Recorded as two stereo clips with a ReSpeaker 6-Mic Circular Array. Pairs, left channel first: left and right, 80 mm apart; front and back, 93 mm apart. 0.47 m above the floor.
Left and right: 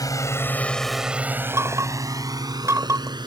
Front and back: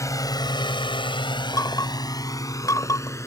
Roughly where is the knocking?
Ahead right.